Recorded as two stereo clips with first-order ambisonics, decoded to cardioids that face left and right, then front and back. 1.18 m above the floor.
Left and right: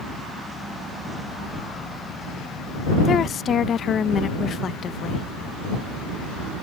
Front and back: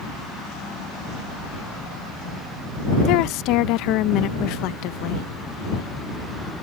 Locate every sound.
3.0 s a woman speaking: 30° left